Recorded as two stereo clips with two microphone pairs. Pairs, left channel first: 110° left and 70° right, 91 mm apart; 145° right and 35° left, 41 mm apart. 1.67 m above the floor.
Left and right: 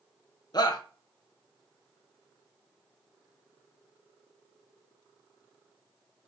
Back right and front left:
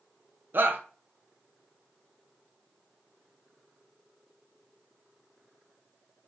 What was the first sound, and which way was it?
A shout, 70° left.